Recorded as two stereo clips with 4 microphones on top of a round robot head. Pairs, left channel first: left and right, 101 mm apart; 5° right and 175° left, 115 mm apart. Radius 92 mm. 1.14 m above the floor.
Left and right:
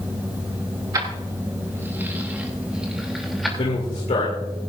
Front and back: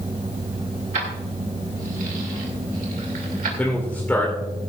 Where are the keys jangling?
145° right, 2.5 m; by 3.5 s straight behind, 3 m.